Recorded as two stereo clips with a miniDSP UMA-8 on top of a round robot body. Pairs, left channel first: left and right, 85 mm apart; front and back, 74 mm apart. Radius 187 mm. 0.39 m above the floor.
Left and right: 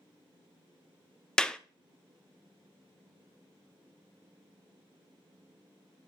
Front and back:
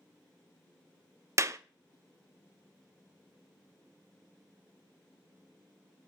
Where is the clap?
165° left, 0.6 m.